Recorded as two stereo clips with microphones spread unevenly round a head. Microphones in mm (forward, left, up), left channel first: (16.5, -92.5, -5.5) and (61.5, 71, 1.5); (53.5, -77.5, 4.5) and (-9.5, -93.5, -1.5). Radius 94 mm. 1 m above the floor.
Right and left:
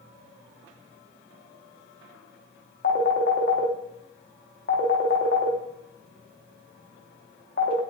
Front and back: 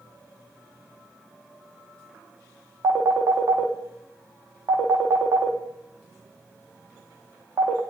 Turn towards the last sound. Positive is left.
turn(degrees=-150)